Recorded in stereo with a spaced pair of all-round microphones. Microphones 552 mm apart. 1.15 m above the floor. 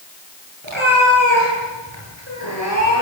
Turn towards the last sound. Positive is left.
turn(degrees=-55)  # may be behind; listen again after turning